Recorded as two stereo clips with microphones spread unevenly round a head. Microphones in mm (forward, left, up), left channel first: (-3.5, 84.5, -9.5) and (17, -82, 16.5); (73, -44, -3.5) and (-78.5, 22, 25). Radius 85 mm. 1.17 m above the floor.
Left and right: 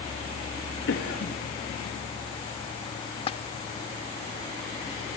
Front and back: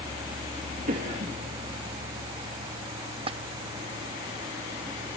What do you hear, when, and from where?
0.9 s a cough: 105° left, 2.5 m
3.3 s a splash: 150° left, 0.9 m